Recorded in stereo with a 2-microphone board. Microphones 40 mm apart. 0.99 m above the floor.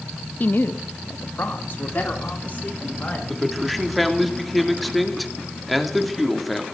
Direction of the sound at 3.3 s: Centre (ahead or behind).